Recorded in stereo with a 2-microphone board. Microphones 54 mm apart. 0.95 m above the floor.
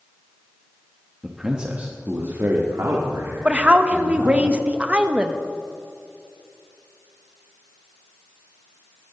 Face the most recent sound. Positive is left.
turn(degrees=-20)  # may be behind; listen again after turning